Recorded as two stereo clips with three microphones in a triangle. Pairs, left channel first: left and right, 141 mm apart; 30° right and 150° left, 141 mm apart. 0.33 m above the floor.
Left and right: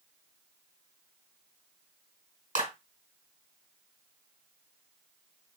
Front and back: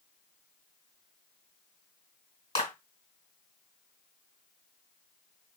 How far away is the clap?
About 2 m.